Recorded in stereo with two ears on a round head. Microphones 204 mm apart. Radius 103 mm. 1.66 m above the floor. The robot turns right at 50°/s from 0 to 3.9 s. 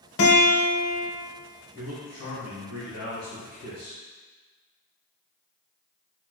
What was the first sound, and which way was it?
A guitar, 60° left.